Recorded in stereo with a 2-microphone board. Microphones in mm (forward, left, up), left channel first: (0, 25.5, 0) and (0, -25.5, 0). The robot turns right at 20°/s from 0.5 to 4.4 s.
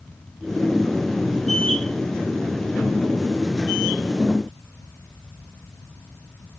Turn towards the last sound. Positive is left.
No sound to turn to.